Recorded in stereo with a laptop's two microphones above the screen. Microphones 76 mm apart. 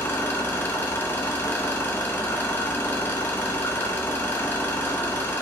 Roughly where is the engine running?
Left.